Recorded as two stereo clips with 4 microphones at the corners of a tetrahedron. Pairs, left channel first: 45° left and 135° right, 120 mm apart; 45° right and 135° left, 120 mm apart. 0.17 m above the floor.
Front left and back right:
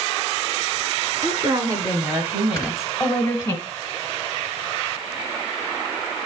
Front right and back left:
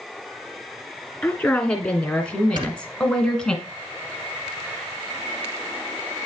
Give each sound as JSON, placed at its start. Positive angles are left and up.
{"t": 1.2, "sound": "a woman speaking", "azimuth_deg": -120, "distance_m": 1.7}
{"t": 2.6, "sound": "snoring", "azimuth_deg": 110, "distance_m": 1.9}